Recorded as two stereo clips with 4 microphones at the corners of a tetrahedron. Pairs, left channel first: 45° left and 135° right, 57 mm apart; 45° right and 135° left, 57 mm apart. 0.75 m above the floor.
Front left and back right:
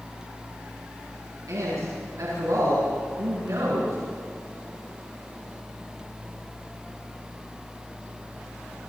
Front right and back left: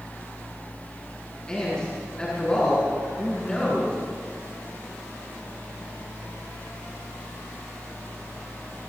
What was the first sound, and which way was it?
A man speaking, 120° right.